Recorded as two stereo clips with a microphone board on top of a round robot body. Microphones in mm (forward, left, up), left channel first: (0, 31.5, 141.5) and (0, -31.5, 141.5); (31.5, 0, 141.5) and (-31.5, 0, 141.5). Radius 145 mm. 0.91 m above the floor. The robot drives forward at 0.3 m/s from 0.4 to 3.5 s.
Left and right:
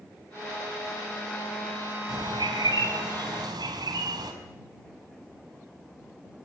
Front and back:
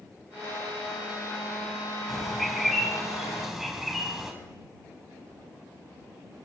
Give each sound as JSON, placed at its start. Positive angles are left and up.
{"t": 2.1, "sound": "a bird", "azimuth_deg": -90, "distance_m": 4.5}